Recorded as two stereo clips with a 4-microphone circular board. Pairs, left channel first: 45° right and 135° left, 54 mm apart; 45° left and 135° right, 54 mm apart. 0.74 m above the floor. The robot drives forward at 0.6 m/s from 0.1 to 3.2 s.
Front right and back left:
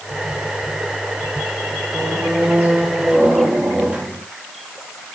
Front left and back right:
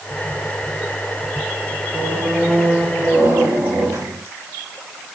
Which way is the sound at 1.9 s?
160° right.